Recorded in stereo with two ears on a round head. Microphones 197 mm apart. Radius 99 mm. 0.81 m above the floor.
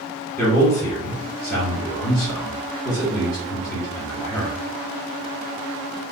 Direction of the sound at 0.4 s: 15° left (ahead or behind).